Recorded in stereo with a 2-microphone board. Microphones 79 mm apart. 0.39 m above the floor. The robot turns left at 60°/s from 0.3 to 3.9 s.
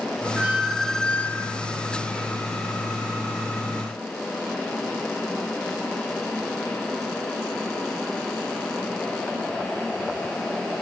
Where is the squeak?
155° right, 0.9 m; by 1.6 s 130° left, 0.9 m.